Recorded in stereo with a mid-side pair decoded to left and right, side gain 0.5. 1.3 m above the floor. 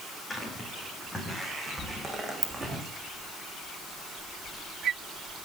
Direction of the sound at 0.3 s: 20° left.